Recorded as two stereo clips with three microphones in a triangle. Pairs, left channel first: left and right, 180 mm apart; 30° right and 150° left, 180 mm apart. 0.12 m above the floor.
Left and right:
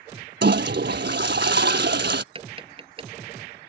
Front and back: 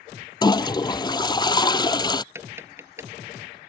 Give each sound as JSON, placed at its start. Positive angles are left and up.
{"t": 0.4, "sound": "a toilet flushing", "azimuth_deg": -95}
{"t": 2.4, "sound": "tapping", "azimuth_deg": -135}